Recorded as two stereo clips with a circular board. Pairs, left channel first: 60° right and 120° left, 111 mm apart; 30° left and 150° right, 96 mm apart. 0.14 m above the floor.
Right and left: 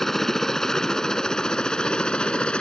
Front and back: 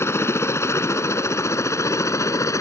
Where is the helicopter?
25° left; by 2.6 s 15° left.